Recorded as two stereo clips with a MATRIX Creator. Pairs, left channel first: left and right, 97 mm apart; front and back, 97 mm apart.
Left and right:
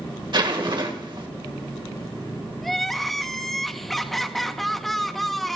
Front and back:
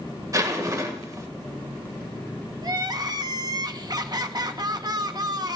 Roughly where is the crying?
Behind.